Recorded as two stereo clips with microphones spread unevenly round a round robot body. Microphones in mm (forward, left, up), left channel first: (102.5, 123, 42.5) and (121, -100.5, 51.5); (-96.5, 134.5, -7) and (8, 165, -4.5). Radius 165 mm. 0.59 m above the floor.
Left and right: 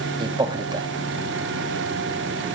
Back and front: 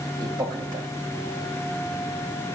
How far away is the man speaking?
About 0.6 m.